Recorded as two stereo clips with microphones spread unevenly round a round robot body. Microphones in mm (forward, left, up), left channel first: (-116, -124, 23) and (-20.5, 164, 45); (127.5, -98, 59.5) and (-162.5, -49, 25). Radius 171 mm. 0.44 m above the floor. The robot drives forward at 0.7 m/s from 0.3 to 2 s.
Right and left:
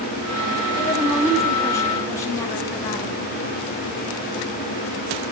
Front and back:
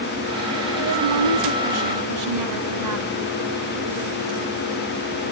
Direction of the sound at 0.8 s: 170° left.